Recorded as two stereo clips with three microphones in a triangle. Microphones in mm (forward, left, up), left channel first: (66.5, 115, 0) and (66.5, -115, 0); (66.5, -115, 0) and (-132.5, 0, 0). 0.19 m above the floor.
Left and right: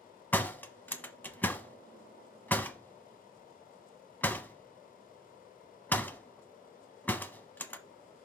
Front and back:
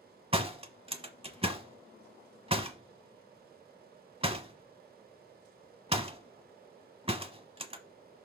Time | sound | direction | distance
0.3 | a door slam | 160° left | 0.8 m